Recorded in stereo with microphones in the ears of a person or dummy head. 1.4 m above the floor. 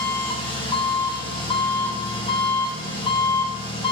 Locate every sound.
0.0 s an engine running: 30° left (ahead or behind), 2 m